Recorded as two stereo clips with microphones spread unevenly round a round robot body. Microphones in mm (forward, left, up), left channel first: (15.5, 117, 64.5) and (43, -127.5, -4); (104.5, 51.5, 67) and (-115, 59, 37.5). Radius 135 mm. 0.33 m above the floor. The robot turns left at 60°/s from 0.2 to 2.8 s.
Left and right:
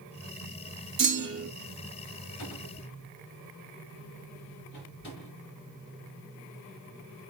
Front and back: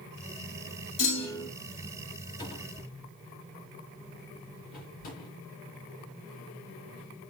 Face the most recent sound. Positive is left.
turn(degrees=50)